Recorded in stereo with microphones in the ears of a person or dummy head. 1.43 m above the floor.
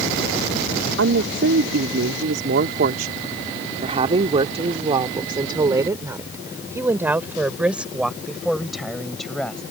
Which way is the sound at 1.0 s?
80° right.